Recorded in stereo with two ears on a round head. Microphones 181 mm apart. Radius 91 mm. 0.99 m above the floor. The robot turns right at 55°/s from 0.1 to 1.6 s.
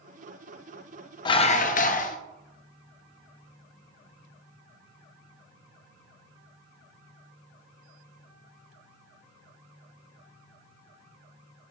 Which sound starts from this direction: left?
Dishes clattering, at 1.2 s.